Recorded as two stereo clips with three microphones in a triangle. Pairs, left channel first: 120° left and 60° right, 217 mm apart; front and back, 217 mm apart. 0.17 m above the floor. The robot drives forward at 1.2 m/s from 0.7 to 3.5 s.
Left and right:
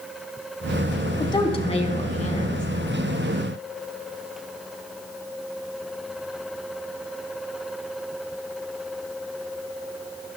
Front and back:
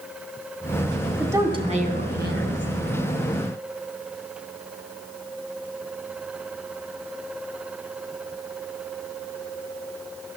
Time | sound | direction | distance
1.2 | a woman speaking | 105° left | 1.2 m